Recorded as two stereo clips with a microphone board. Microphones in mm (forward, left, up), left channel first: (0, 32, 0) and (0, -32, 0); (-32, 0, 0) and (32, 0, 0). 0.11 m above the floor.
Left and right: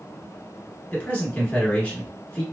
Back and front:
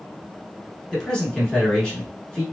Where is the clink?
No clink in this recording.